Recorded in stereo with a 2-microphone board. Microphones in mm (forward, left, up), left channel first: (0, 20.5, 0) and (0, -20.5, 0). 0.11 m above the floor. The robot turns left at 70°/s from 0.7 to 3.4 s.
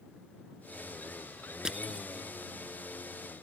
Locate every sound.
1.6 s crushing: 15° right (ahead or behind); by 2.1 s 20° right (ahead or behind)